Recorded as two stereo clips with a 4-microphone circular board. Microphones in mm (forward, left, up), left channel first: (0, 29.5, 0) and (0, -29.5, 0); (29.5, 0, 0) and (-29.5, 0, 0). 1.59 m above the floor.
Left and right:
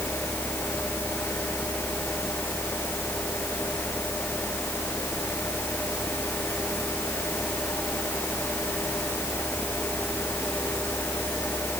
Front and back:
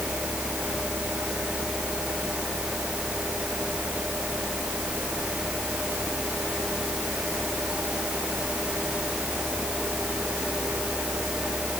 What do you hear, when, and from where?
Only background noise.